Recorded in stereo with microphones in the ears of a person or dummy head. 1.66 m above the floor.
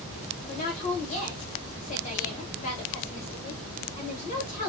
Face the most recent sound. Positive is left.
turn(degrees=40)  # may be behind; listen again after turning